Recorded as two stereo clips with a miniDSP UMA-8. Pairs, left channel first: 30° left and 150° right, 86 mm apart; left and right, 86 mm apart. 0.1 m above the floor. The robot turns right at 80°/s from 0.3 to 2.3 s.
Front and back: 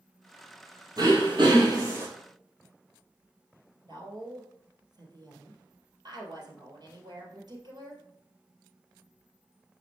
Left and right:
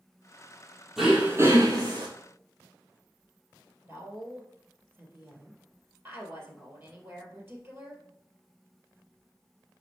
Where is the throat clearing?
Straight behind, 2 m; by 2.1 s 90° right, 2 m.